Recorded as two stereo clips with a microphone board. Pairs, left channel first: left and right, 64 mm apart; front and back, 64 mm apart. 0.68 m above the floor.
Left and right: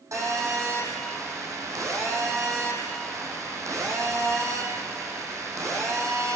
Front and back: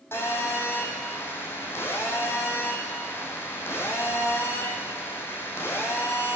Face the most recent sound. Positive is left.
turn(degrees=-55)